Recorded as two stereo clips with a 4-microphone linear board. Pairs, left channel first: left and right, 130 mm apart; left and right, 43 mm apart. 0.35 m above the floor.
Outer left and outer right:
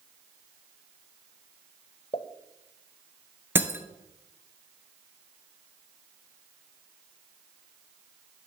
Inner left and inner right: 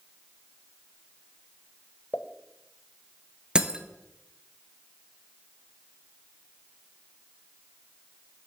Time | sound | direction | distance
2.1 | a pop | 45° left (ahead or behind) | 0.7 m
3.5 | breaking glass | 15° right (ahead or behind) | 0.8 m